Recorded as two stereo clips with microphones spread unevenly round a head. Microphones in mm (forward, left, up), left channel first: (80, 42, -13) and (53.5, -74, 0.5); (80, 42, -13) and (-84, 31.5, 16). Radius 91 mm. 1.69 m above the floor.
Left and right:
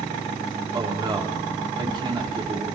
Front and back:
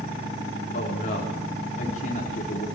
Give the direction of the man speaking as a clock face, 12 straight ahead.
2 o'clock.